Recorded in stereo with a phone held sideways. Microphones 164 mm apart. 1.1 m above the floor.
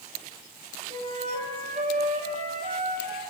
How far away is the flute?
About 5.5 m.